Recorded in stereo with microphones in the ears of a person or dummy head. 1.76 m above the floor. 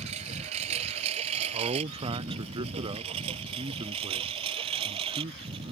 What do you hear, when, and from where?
0.0 s a lawn mower: 35° right (ahead or behind); by 5.7 s 30° right (ahead or behind)
1.5 s a man speaking: 25° right (ahead or behind)